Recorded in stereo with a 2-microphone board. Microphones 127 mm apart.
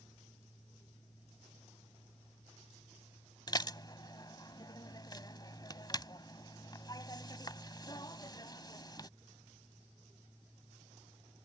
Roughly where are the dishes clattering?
Left.